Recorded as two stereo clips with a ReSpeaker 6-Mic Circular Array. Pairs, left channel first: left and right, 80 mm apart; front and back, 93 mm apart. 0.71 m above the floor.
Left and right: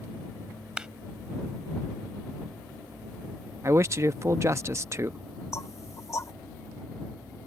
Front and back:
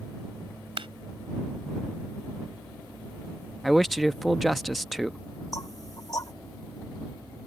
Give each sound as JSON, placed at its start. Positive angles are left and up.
{"t": 0.8, "sound": "a clap", "azimuth_deg": -170}
{"t": 3.6, "sound": "a man speaking", "azimuth_deg": -90}
{"t": 5.5, "sound": "knocking", "azimuth_deg": 45}